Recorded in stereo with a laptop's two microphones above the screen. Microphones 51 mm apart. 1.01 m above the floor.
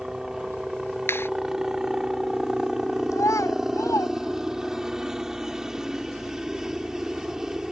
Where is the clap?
50° left (ahead or behind).